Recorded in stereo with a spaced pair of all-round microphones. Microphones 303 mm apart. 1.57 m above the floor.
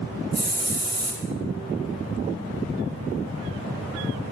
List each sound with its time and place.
0.3 s a hiss: 60° right (ahead or behind), 1.4 m